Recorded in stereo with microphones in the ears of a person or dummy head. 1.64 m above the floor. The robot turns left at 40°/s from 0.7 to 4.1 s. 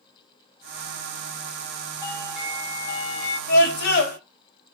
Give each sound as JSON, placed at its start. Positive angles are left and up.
{"t": 2.0, "sound": "a doorbell", "azimuth_deg": 155, "distance_m": 4.0}
{"t": 3.5, "sound": "a scream", "side_deg": 75, "distance_m": 4.5}